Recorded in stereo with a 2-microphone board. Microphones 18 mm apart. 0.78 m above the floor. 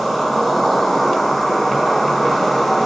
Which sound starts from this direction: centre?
An insect, at 0.0 s.